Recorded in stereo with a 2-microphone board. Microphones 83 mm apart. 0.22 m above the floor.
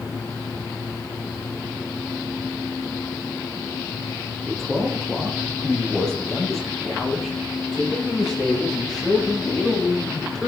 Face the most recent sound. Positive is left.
turn(degrees=10)  # may be behind; listen again after turning